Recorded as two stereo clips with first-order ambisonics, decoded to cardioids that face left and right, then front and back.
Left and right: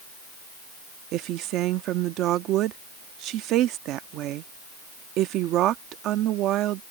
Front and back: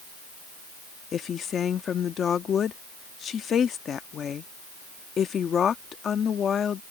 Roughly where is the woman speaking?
Ahead right.